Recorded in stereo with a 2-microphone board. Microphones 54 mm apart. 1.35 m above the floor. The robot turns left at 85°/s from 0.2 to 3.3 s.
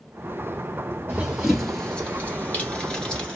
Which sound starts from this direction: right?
Running footsteps, at 1.1 s.